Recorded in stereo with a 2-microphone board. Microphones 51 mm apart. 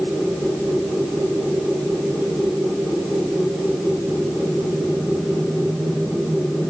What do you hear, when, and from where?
Only background noise.